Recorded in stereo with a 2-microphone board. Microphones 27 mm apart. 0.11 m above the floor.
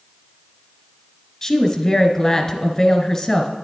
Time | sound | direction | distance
1.4 | a woman speaking | 25° left (ahead or behind) | 1.3 m